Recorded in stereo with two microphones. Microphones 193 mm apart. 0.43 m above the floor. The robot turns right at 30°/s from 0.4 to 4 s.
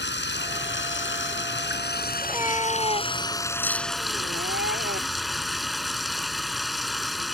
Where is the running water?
70° left; by 7.3 s straight behind.